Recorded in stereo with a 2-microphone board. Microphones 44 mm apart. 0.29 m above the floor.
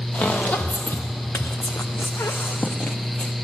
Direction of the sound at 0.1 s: 45° left (ahead or behind).